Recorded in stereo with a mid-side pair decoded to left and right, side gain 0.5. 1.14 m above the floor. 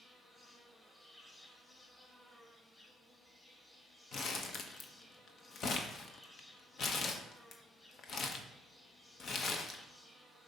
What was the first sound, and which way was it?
An insect, 20° left.